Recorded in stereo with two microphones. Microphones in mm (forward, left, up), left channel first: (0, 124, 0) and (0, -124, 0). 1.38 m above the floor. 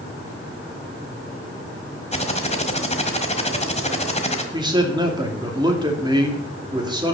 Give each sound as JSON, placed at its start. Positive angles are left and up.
{"t": 2.1, "sound": "typing on a keyboard", "side_deg": 25, "distance_m": 1.5}
{"t": 4.5, "sound": "a man speaking", "side_deg": -15, "distance_m": 2.5}